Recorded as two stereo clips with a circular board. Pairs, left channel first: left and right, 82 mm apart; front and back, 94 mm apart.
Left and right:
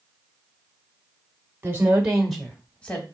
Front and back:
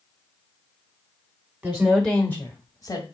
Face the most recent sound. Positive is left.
turn(degrees=25)